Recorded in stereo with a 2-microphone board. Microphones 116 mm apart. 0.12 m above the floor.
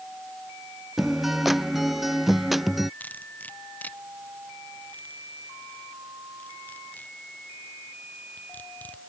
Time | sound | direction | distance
1.0 | a guitar | centre (ahead or behind) | ?
3.0 | cutlery clinking | 15° left (ahead or behind) | ?